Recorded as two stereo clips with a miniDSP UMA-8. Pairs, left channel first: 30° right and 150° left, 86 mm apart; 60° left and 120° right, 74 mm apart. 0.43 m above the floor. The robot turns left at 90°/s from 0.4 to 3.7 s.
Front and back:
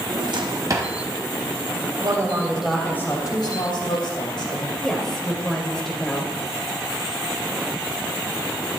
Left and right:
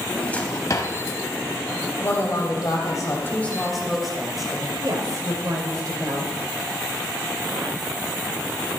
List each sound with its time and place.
0.1 s a drawer: 130° left, 1.3 m; by 0.9 s 80° left, 1.3 m
2.0 s a woman speaking: 120° left, 2 m; by 4.7 s 30° right, 2 m
4.8 s a woman speaking: 110° right, 2 m